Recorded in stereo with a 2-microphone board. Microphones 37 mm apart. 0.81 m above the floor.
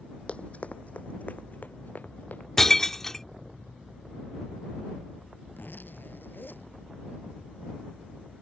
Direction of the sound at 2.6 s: 10° left (ahead or behind).